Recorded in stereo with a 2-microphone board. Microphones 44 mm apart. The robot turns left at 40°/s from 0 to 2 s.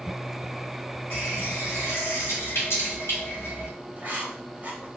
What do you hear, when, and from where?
1.1 s a running tap: 115° left, 1.4 m; by 3.7 s 80° left, 1.4 m
4.0 s writing: 35° right (ahead or behind), 0.9 m